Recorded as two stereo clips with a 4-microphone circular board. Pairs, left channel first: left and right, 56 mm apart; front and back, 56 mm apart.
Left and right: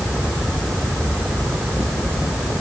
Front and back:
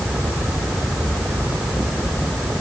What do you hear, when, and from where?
Only background noise.